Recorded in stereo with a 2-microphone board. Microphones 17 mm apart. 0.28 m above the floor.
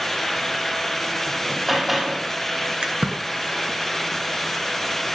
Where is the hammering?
10° right (ahead or behind), 8 m.